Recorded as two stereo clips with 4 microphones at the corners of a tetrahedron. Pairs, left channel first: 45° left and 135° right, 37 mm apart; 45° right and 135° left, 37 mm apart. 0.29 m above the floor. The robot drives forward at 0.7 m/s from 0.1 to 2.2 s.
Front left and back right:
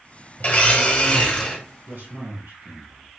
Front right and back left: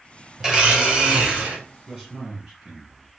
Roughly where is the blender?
Ahead left.